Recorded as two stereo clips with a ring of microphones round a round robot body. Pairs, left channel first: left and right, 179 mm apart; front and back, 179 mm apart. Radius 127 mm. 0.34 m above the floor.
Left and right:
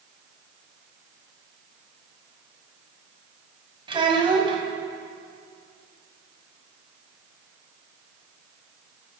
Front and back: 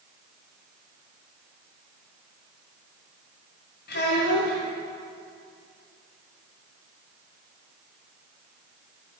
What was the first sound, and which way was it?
A child speaking, 30° right.